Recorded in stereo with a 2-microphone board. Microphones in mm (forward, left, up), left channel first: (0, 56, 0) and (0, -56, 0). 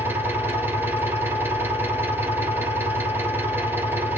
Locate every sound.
0.0 s an engine running: 20° right (ahead or behind), 1.8 m